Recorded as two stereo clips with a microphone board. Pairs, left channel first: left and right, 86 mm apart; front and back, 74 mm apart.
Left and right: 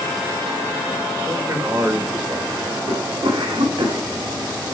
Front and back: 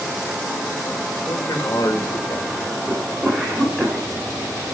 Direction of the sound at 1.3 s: 35° right.